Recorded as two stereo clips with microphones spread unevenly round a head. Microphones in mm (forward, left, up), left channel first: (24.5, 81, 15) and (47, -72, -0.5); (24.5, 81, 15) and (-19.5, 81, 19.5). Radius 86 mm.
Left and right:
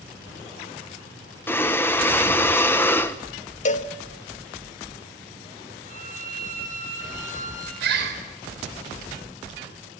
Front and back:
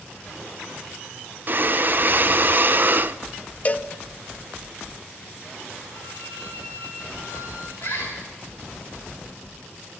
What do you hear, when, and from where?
1.5 s breathing: 175° left, 0.8 m
3.6 s a cowbell: 55° left, 1.1 m
5.8 s a violin: 45° right, 5.5 m
7.8 s a bird: 75° right, 4 m